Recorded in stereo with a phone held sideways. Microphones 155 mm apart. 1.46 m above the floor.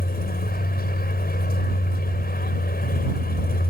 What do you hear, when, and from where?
0.0 s a vehicle: 85° left